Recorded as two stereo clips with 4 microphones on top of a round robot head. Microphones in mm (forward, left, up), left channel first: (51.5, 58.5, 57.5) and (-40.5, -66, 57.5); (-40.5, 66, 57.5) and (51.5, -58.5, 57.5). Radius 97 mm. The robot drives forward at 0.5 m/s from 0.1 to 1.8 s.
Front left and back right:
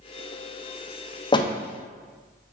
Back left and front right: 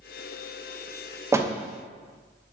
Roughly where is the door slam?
Ahead.